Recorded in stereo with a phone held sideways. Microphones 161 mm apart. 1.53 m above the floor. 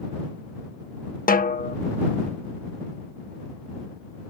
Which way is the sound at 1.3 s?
60° left (ahead or behind).